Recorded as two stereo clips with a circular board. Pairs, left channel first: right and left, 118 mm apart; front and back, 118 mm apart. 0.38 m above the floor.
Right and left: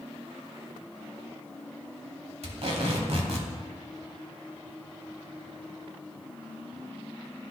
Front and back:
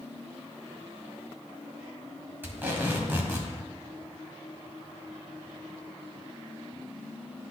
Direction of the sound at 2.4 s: 110° left.